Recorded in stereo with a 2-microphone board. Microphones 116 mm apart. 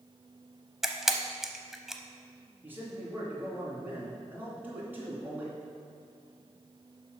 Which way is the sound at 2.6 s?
15° right (ahead or behind).